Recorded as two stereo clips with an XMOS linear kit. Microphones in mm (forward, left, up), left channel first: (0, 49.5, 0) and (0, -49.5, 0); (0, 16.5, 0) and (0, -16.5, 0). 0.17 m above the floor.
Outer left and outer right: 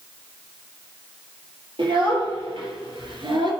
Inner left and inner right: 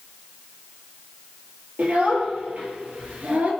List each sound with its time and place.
1.8 s a child speaking: 55° right (ahead or behind), 3.5 m